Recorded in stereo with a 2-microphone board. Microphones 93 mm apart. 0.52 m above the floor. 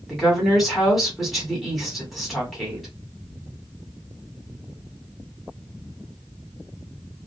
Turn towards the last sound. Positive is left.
turn(degrees=0)  # may be behind; listen again after turning